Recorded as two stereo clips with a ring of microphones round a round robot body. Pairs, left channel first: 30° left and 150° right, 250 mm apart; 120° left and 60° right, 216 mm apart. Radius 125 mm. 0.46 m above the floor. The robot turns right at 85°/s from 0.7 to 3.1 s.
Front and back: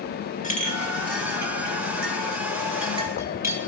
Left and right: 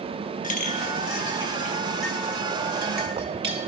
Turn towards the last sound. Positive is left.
turn(degrees=-75)